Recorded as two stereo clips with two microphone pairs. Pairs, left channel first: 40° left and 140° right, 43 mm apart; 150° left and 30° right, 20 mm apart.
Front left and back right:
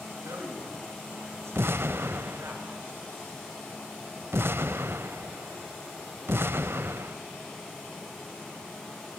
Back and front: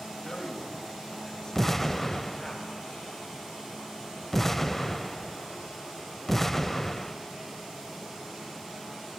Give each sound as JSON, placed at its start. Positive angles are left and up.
{"t": 0.2, "sound": "a man speaking", "azimuth_deg": -145, "distance_m": 8.0}
{"t": 1.6, "sound": "an explosion", "azimuth_deg": -125, "distance_m": 0.6}